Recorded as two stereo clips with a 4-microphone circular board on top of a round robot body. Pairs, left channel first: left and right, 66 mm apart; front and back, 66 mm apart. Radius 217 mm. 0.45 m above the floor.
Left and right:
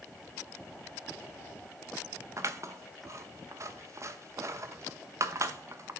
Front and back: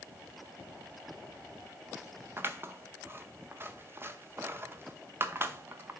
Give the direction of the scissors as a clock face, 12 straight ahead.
4 o'clock.